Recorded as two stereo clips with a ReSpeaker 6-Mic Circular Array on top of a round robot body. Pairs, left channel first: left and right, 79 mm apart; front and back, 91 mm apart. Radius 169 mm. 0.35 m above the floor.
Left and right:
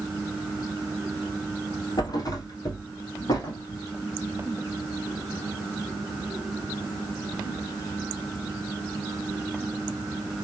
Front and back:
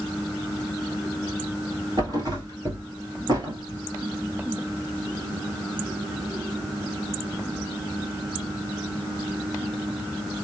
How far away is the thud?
About 1.7 m.